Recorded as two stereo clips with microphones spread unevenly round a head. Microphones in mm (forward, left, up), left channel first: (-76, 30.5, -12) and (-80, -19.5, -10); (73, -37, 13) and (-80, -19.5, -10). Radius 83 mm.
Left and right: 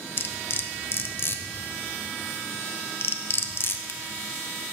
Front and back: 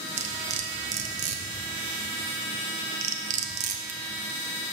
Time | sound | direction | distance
0.2 | cutlery clinking | 125° left | 0.5 m